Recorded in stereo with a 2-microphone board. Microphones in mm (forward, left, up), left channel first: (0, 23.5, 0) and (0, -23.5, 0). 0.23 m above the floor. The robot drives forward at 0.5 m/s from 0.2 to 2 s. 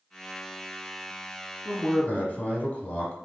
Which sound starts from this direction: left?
A man speaking, at 1.6 s.